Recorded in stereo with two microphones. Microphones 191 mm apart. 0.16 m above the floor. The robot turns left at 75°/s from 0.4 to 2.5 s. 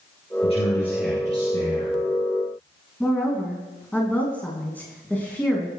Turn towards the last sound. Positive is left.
turn(degrees=10)  # may be behind; listen again after turning